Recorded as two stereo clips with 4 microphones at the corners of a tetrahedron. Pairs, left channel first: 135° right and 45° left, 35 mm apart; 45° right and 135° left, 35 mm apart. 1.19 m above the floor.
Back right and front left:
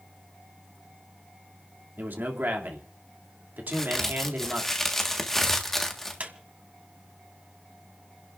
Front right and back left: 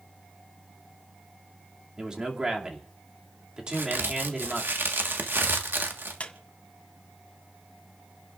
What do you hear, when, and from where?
2.0 s a man speaking: 65° left, 2.5 m
3.7 s a crack: 145° left, 1.5 m
6.2 s a squeak: 5° left, 1.6 m